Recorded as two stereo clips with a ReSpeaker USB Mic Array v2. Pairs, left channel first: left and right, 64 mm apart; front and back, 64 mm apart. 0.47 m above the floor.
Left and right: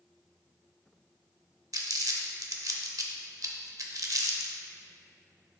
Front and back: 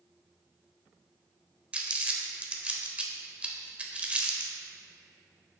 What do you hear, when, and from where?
1.7 s crumpling: 110° right, 0.7 m